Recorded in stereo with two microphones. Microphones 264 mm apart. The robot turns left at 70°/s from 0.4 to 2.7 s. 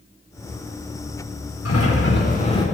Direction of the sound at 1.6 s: 85° left.